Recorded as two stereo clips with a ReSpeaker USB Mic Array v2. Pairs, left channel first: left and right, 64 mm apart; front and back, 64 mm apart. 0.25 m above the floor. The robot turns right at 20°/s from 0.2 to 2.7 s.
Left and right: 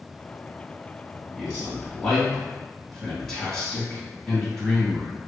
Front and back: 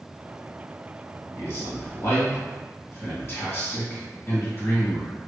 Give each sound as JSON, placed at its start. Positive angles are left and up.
{"t": 1.4, "sound": "a man speaking", "azimuth_deg": -15, "distance_m": 1.5}